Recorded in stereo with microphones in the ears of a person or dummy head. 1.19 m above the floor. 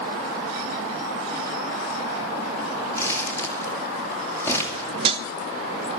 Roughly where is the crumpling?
Centre.